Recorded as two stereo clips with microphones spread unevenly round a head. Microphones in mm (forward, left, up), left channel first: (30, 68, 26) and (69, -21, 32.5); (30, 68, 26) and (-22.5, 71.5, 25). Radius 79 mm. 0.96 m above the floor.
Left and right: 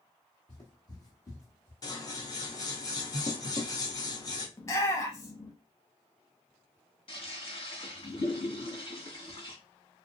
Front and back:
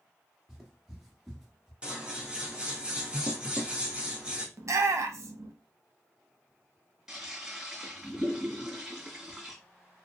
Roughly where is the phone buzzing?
No phone buzzing in this recording.